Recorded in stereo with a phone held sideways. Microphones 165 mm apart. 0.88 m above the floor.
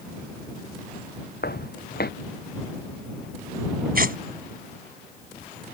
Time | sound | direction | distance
1.4 | footsteps | 75° left (ahead or behind) | ?
4.0 | tearing paper | 65° right (ahead or behind) | ?